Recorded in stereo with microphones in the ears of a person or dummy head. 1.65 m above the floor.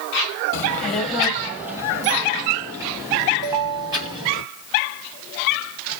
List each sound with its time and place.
0.5 s a child speaking: 20° left (ahead or behind), 0.9 m; by 4.4 s 25° right (ahead or behind), 3 m
3.4 s a ringtone: 20° right (ahead or behind), 2.5 m